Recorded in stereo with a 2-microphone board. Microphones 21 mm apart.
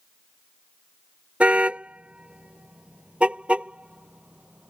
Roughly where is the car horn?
Right.